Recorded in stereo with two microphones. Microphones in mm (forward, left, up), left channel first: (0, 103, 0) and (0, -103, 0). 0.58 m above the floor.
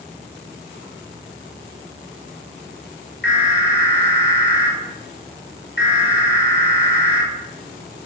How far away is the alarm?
About 5.5 m.